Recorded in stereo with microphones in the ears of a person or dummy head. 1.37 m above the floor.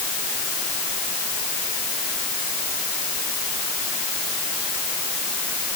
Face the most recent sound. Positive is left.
No sound to turn to.